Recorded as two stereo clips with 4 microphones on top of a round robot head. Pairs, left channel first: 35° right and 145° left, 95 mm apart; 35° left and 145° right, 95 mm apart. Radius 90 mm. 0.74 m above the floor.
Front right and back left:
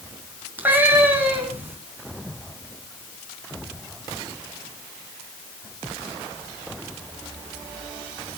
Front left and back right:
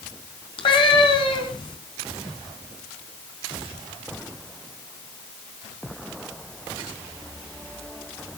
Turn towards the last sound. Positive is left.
turn(degrees=75)